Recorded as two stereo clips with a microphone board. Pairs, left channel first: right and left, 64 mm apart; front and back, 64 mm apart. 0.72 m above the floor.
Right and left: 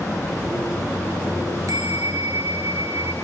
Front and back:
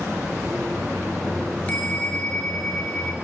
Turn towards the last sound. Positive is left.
turn(degrees=70)